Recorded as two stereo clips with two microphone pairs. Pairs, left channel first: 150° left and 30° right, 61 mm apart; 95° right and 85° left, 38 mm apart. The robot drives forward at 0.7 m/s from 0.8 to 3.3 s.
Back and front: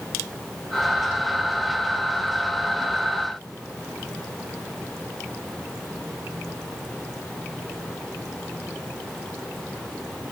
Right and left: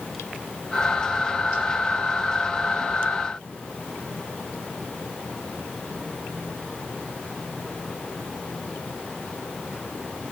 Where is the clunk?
I don't hear a clunk.